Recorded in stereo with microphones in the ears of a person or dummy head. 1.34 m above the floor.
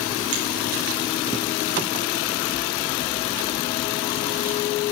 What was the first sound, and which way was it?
A finger snap, 50° right (ahead or behind).